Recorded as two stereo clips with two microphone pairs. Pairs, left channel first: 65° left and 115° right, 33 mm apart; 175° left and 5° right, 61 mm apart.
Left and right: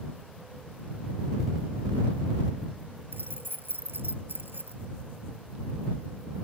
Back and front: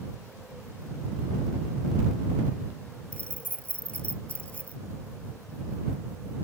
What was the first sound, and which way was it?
Keys jangling, 115° right.